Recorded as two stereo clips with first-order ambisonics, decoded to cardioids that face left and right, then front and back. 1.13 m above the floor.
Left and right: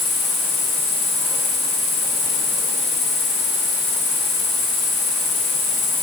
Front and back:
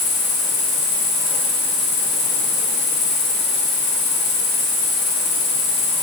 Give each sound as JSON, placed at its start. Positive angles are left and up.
{"t": 0.0, "sound": "an insect", "azimuth_deg": 35, "distance_m": 4.5}